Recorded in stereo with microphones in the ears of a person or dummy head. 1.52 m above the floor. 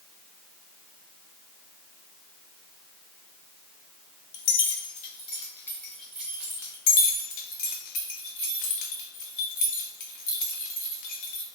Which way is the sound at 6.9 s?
50° left (ahead or behind).